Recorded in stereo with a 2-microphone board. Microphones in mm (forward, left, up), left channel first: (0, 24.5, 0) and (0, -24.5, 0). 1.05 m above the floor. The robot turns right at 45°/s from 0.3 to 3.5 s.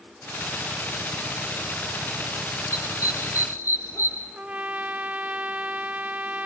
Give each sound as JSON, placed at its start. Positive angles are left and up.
{"t": 2.7, "sound": "a dog barking", "side_deg": 70, "distance_m": 5.5}
{"t": 4.3, "sound": "a trumpet", "side_deg": -30, "distance_m": 0.7}